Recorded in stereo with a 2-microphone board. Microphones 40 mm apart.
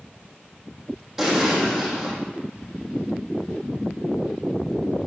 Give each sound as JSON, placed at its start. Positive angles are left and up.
{"t": 1.2, "sound": "an explosion", "side_deg": -10, "distance_m": 3.5}